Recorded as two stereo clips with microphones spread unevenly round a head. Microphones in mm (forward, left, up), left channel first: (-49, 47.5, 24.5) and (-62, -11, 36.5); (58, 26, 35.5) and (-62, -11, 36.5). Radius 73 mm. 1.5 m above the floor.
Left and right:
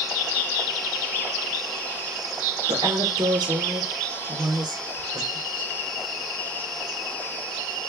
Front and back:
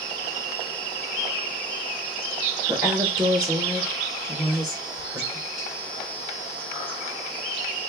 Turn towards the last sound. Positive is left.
turn(degrees=-100)